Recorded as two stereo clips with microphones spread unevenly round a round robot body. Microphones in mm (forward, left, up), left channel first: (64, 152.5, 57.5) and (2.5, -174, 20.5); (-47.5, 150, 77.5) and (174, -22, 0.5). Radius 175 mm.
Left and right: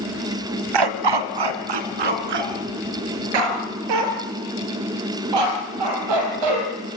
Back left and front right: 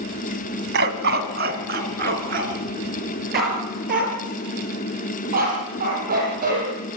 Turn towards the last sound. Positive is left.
turn(degrees=-105)